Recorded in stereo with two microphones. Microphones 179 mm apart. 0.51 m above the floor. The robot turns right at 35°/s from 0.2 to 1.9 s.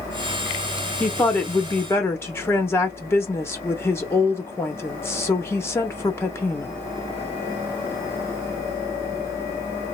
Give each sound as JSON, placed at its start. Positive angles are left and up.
{"t": 1.0, "sound": "a woman speaking", "side_deg": 5, "distance_m": 0.6}